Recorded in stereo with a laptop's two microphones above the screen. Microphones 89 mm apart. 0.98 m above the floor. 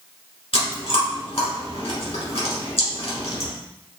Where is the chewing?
85° left, 1.6 m.